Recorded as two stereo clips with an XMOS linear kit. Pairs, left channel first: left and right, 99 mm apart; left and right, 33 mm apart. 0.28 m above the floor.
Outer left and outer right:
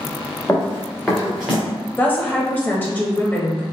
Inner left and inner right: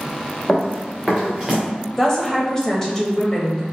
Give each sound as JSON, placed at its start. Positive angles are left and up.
{"t": 0.5, "sound": "running footsteps", "side_deg": 25, "distance_m": 1.9}
{"t": 2.0, "sound": "a woman speaking", "side_deg": 20, "distance_m": 0.9}